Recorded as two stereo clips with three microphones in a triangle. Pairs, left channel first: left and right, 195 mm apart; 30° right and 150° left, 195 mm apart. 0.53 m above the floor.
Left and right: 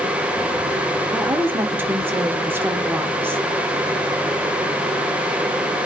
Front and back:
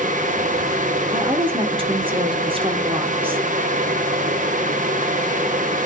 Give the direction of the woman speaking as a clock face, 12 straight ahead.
5 o'clock.